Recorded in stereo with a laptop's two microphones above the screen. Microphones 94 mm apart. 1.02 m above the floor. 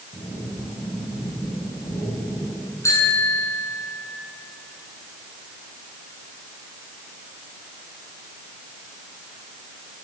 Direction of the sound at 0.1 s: 75° left (ahead or behind).